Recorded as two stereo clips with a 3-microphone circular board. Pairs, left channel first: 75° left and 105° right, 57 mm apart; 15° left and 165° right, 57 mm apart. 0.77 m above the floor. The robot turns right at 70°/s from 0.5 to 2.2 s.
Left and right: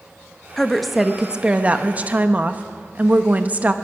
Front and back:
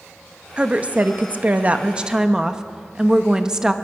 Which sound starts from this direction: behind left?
A woman speaking, at 0.6 s.